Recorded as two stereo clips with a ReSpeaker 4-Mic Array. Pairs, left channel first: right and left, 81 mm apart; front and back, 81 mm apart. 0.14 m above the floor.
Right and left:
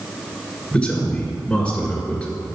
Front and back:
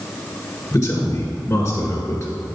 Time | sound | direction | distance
0.7 | a man speaking | 20° right | 1.8 m